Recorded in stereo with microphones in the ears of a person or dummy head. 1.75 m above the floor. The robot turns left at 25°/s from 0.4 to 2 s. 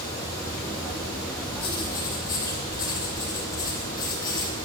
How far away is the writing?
About 2.5 m.